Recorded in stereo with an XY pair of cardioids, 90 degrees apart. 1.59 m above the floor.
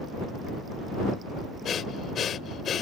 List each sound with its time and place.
1.6 s breathing: 60° left